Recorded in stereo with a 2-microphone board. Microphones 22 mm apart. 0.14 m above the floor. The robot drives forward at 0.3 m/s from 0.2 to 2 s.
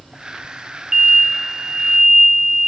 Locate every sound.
0.9 s an explosion: 25° right (ahead or behind), 0.5 m; by 2.7 s 30° right (ahead or behind), 0.5 m